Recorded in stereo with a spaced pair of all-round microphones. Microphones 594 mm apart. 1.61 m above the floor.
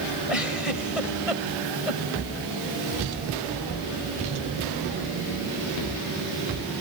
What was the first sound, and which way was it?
A giggle, 65° left (ahead or behind).